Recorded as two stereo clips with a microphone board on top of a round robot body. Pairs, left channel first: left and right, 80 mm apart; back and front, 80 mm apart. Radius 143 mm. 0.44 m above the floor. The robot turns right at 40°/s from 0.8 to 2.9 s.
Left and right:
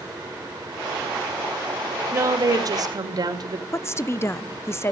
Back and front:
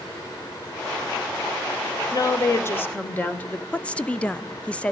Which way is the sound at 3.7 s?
115° left.